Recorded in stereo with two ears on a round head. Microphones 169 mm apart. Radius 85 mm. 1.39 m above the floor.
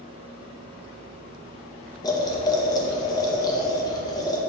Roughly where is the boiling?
Left.